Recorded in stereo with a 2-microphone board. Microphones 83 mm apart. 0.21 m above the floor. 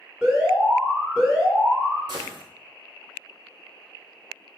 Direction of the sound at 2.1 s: 65° right (ahead or behind).